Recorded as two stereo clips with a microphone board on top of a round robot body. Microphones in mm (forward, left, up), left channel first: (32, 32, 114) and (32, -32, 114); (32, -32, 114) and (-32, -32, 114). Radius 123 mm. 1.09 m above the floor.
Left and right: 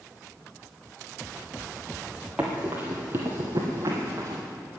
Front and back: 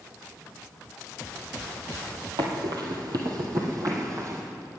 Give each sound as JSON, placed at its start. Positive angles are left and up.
{"t": 2.4, "sound": "running footsteps", "azimuth_deg": -170, "distance_m": 1.6}